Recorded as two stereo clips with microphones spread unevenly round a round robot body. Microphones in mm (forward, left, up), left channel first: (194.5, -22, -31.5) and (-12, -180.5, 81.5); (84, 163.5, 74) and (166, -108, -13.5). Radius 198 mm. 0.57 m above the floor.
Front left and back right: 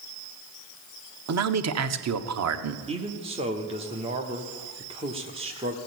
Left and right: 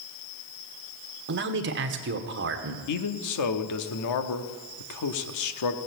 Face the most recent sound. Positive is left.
turn(degrees=130)